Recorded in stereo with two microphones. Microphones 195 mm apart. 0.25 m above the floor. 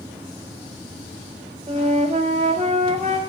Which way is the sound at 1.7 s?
35° right (ahead or behind).